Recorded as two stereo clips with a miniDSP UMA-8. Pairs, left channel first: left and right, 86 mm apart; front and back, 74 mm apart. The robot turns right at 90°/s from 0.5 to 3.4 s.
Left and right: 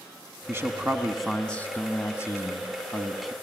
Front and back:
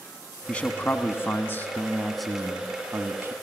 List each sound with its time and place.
0.5 s a man speaking: 65° right, 1.4 m; by 3.3 s 170° right, 1.4 m